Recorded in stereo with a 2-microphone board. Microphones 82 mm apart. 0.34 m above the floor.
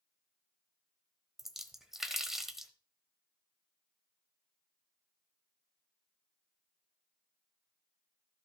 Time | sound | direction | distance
1.4 | a splash | 5° right (ahead or behind) | 1.1 m